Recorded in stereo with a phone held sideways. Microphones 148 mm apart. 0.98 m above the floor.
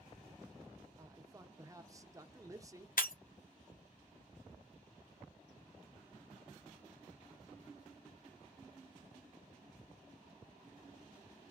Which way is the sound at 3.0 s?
70° left (ahead or behind).